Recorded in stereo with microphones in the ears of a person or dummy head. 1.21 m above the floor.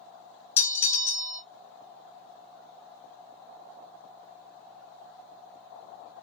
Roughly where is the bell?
Centre.